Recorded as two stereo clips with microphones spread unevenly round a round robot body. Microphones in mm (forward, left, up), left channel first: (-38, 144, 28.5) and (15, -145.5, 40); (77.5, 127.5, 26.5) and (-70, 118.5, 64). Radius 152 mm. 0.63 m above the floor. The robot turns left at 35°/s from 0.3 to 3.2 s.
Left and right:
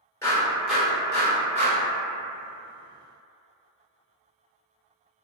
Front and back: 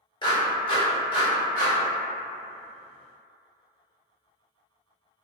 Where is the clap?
25° left, 1.2 m; by 1.8 s 25° right, 1.2 m.